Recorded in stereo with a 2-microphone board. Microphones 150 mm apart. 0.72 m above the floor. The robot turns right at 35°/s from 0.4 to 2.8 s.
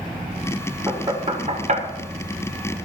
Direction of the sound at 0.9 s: 25° right (ahead or behind).